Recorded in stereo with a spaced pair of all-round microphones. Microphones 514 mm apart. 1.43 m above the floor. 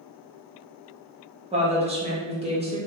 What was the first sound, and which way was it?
A woman speaking, 10° right (ahead or behind).